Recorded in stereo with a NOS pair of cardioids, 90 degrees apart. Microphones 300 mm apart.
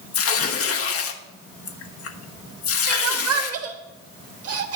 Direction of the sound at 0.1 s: 50° left.